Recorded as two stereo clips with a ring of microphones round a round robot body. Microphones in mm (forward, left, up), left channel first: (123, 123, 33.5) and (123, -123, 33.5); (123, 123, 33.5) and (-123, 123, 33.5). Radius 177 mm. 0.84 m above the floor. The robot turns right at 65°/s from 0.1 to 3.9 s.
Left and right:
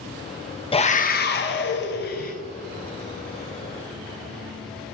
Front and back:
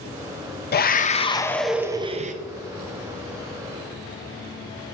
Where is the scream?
30° left, 0.6 m; by 2.3 s 135° left, 0.6 m.